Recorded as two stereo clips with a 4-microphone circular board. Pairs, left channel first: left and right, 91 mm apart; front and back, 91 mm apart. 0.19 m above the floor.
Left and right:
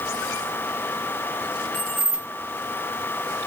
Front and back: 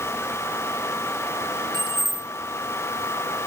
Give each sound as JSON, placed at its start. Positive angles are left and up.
{"t": 1.7, "sound": "keys jangling", "azimuth_deg": 165, "distance_m": 1.8}